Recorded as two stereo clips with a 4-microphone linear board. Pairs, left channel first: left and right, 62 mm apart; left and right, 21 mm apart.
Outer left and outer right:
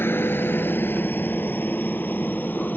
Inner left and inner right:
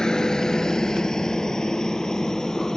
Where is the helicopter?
35° left (ahead or behind); by 2.8 s 25° left (ahead or behind).